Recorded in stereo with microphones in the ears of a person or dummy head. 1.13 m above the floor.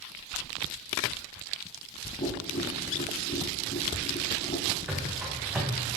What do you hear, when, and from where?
2.2 s tapping: 40° left (ahead or behind), 3 m
4.9 s running footsteps: 10° right (ahead or behind), 3 m